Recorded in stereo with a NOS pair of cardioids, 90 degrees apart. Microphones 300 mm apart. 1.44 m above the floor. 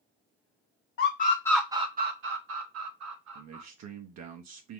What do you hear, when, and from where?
1.0 s a scream: 45° left, 0.7 m; by 3.6 s 65° right, 1.8 m
3.4 s a man speaking: 60° right, 0.9 m